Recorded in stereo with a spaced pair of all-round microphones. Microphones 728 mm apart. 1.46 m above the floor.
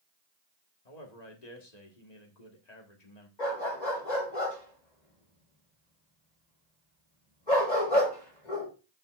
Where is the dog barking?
75° left (ahead or behind), 5.5 m.